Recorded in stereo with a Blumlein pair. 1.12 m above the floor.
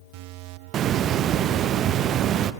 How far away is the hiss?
About 0.7 m.